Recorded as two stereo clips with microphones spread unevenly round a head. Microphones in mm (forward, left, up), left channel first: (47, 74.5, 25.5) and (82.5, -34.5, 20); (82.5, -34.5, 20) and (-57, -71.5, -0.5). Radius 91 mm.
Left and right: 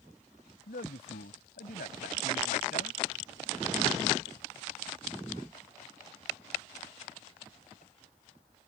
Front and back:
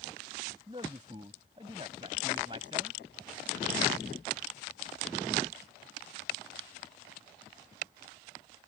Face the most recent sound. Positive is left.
turn(degrees=125)